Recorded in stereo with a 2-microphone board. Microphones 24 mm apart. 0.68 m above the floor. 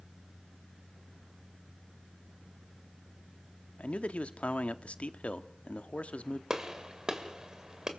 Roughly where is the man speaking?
Left.